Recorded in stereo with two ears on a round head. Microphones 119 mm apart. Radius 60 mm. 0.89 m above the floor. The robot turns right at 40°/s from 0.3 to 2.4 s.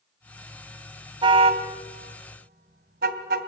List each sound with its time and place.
1.2 s a car horn: 35° right (ahead or behind), 2 m; by 3.5 s 80° right, 2 m